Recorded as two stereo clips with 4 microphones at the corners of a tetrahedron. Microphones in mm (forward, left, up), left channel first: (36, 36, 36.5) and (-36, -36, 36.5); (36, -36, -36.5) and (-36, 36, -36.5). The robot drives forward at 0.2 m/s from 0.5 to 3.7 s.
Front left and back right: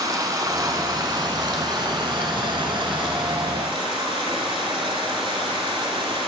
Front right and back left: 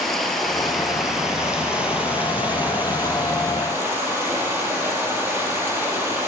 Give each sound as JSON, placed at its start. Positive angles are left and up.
{"t": 0.0, "sound": "running water", "azimuth_deg": -130, "distance_m": 0.7}